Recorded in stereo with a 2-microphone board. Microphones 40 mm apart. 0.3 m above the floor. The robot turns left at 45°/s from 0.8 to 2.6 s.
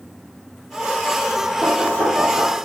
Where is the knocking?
50° right (ahead or behind), 9 m; by 2.7 s 80° right, 9 m.